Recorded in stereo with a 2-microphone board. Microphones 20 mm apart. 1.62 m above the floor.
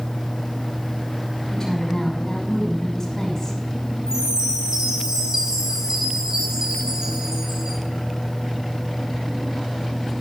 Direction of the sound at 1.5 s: 25° left (ahead or behind).